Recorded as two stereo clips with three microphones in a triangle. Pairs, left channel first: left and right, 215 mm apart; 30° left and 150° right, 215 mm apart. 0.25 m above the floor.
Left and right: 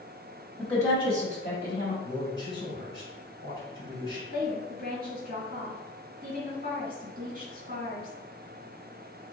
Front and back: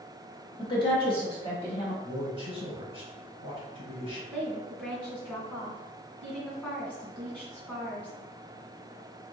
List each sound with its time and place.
0.6 s a woman speaking: 10° left, 1.1 m; by 1.9 s 90° left, 1.6 m
2.0 s a man speaking: 25° left, 2.0 m
4.3 s a woman speaking: 50° right, 2.0 m